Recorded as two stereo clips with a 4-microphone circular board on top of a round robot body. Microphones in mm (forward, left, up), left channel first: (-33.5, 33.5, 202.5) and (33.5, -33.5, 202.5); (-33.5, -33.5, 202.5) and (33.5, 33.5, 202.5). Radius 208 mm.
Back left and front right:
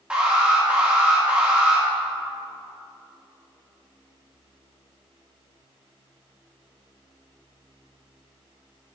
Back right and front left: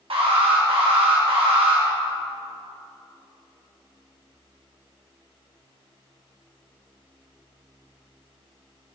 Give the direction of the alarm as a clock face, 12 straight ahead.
11 o'clock.